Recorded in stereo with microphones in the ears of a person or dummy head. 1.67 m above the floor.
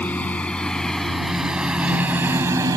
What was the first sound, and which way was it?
A lawn mower, 10° left (ahead or behind).